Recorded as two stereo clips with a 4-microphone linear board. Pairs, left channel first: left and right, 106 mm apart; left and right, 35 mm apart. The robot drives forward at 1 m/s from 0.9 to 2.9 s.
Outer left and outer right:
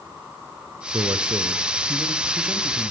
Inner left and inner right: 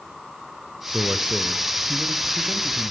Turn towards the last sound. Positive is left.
turn(degrees=-20)  # may be behind; listen again after turning